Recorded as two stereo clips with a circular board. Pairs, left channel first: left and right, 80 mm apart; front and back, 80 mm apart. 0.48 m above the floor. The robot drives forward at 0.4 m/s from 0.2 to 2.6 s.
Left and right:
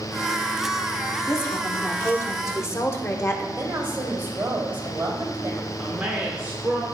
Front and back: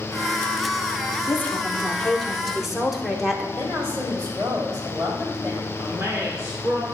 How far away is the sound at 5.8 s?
About 1.1 m.